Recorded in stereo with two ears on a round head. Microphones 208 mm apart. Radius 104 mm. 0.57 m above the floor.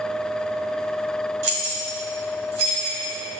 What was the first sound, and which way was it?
Keys jangling, 75° right (ahead or behind).